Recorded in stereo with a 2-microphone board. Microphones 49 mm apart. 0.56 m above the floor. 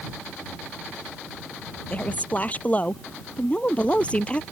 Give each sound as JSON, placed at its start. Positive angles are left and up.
{"t": 1.9, "sound": "a woman speaking", "side_deg": 30}